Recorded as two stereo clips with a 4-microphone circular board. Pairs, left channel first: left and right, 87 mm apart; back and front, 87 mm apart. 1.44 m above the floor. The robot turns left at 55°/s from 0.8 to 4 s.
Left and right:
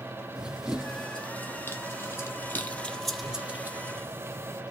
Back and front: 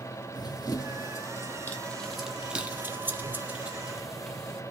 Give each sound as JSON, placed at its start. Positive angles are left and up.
{"t": 0.3, "sound": "running footsteps", "azimuth_deg": -170, "distance_m": 2.0}